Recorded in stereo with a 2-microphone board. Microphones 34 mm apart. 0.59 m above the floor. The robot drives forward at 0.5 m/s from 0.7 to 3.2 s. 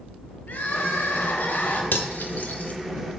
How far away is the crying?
About 0.9 m.